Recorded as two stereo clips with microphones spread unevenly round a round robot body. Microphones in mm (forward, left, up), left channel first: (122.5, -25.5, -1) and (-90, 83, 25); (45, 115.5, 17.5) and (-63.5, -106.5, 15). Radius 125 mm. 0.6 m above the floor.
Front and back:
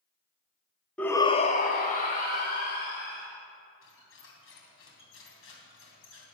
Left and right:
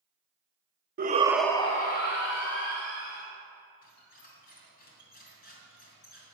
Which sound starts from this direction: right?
A shout, at 1.0 s.